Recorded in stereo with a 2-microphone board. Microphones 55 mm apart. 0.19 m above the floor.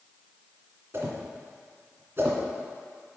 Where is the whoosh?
45° right (ahead or behind), 2 m.